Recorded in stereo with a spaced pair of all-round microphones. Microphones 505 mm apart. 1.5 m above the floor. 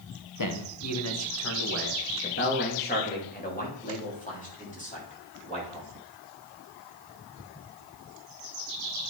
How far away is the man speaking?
About 1.1 m.